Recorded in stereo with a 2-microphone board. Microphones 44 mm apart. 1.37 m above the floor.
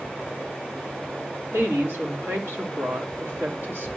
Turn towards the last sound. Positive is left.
turn(degrees=-65)  # may be behind; listen again after turning